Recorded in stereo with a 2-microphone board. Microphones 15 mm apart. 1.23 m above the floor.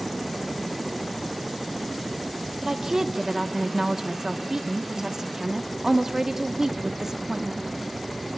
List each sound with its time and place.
2.6 s a woman speaking: 35° right (ahead or behind), 1.2 m